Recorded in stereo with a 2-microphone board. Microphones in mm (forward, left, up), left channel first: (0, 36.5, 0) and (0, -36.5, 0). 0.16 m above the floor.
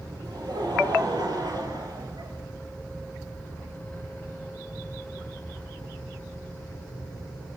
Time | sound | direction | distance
0.2 | laughter | 75° right (ahead or behind) | 5.5 m